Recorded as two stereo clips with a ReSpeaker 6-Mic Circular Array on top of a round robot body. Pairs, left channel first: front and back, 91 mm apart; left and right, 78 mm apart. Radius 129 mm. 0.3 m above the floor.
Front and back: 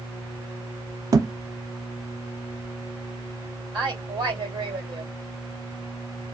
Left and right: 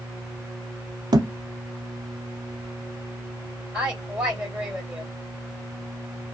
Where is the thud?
125° right, 0.5 m.